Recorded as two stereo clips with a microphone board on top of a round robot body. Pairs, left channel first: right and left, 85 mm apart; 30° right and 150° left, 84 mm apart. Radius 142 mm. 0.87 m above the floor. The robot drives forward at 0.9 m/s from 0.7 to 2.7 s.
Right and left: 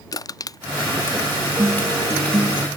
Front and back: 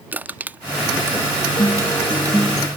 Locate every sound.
0.1 s crushing: 140° right; by 2.5 s 165° right
1.6 s a guitar: 30° left; by 2.7 s 60° left